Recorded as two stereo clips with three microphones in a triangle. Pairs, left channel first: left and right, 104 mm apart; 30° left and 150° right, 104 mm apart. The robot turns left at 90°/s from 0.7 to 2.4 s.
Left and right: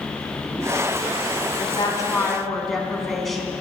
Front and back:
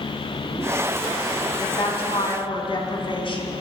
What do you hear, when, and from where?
1.6 s a woman speaking: 75° left, 2 m; by 3.5 s 5° left, 2 m